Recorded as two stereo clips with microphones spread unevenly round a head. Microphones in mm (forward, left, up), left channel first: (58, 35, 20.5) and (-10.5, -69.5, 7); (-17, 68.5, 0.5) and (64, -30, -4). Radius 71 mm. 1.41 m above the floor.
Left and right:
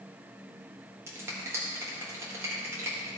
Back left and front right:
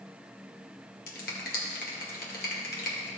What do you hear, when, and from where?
1.1 s a finger snap: 160° left, 1.8 m